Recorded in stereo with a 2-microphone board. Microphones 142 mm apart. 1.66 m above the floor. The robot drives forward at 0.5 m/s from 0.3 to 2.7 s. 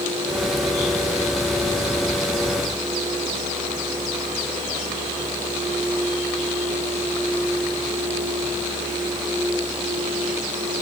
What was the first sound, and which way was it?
Only background noise.